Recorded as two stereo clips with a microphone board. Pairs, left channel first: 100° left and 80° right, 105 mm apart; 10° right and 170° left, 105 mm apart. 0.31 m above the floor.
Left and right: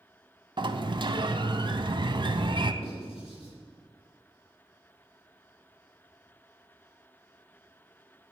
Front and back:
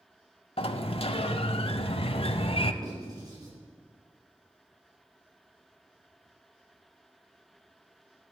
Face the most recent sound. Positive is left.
turn(degrees=120)